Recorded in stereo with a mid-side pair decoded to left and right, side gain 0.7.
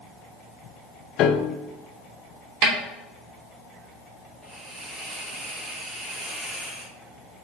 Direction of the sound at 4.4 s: 10° right.